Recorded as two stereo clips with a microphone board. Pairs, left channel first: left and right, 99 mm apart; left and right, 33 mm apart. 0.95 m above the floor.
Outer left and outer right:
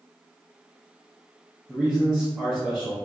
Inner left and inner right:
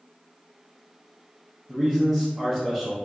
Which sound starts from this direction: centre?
A man speaking, at 1.7 s.